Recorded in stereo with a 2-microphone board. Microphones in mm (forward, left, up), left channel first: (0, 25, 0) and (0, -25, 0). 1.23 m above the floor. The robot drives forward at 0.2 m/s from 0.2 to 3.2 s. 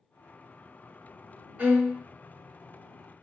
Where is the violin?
35° right (ahead or behind), 1.2 m; by 2.0 s 30° right (ahead or behind), 1.2 m.